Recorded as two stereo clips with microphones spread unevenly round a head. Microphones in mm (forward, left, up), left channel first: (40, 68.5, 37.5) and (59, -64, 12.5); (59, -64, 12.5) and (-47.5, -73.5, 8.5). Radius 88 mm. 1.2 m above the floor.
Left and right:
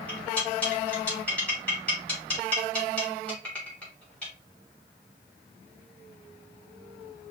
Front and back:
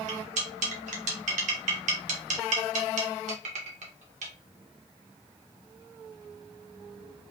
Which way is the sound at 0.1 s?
Straight behind.